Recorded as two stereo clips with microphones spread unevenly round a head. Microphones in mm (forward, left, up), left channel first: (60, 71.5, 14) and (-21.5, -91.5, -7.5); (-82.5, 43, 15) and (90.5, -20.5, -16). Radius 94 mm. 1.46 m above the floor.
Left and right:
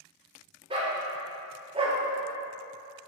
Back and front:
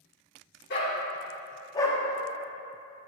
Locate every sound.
0.7 s a dog barking: straight behind, 1.7 m; by 2.0 s 155° right, 0.9 m